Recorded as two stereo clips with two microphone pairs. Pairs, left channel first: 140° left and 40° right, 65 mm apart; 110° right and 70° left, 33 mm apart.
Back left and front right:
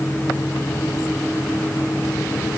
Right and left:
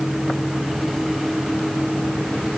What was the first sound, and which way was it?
Only background noise.